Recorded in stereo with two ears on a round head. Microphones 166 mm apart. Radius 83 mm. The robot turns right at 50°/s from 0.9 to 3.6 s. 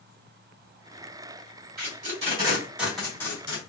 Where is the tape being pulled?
50° right (ahead or behind), 2.5 m; by 3.6 s 30° left (ahead or behind), 2.5 m.